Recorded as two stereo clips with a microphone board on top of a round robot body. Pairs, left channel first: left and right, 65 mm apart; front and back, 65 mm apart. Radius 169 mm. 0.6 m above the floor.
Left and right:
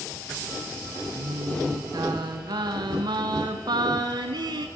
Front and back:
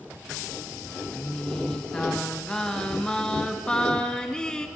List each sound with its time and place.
1.2 s singing: 80° right, 2 m